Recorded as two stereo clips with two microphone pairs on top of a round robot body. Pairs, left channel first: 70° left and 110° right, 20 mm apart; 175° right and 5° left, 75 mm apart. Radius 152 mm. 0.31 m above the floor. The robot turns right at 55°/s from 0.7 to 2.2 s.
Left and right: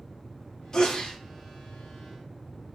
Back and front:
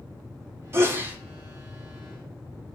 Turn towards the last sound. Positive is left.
turn(degrees=110)